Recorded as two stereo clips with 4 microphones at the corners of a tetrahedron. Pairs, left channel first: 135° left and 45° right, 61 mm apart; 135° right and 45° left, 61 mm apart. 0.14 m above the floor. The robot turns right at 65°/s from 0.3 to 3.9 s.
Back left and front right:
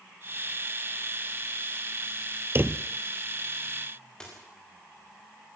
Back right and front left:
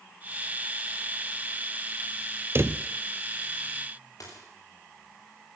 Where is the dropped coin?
145° right, 7.5 m.